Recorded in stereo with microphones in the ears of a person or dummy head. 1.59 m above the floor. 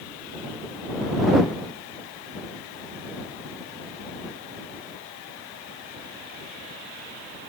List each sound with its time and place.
Only background noise.